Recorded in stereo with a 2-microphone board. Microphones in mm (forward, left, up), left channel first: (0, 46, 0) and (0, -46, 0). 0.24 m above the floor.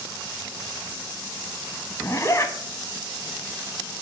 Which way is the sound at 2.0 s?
35° left (ahead or behind).